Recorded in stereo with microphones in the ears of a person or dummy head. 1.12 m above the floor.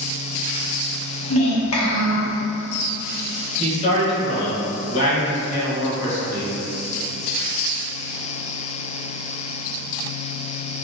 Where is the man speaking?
35° left (ahead or behind), 1.1 m.